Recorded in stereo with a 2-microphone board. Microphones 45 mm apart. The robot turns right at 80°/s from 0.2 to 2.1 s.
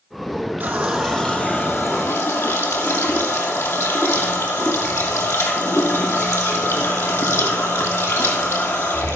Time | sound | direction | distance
0.6 | a running tap | 40° right | 3 m